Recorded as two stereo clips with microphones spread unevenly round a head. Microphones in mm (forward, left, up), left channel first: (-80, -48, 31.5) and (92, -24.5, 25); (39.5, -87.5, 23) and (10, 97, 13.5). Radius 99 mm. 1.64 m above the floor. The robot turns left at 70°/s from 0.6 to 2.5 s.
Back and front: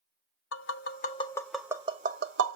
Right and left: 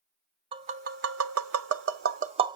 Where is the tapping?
165° left, 0.5 m; by 2.6 s 30° left, 0.5 m.